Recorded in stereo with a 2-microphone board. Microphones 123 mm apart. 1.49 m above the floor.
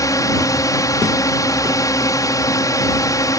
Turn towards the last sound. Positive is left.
turn(degrees=30)  # may be behind; listen again after turning